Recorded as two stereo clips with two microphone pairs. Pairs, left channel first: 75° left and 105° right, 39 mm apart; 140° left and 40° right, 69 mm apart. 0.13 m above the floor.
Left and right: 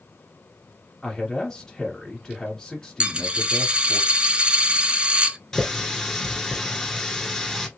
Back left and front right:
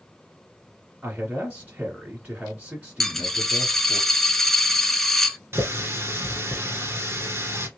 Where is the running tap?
Straight ahead, 1.1 m.